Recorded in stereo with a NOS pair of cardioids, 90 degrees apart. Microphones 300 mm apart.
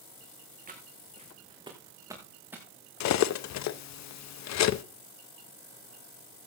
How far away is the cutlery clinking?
About 0.8 m.